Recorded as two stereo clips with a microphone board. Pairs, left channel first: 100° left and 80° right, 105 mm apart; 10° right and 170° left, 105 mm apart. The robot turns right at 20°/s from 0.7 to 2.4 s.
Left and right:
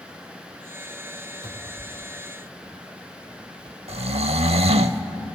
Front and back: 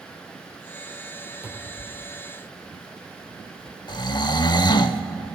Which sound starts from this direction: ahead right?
Snoring, at 3.9 s.